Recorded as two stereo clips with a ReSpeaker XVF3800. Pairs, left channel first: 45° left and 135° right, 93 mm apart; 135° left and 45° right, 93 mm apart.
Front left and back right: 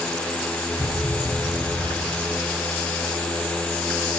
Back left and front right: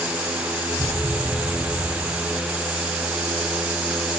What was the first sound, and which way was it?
A thud, 10° right.